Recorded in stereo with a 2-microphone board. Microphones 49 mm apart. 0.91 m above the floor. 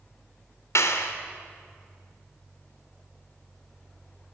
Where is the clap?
75° left (ahead or behind), 1.9 m.